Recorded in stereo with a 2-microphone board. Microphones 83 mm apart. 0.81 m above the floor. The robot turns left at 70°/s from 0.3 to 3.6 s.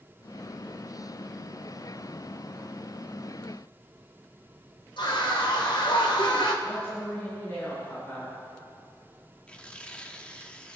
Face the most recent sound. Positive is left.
turn(degrees=15)  # may be behind; listen again after turning